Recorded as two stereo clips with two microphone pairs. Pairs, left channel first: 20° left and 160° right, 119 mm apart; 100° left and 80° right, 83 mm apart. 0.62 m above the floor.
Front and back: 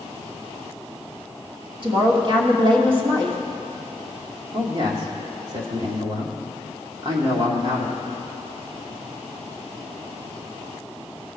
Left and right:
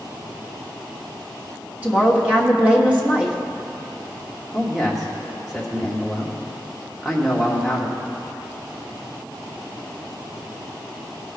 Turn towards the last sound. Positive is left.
turn(degrees=-170)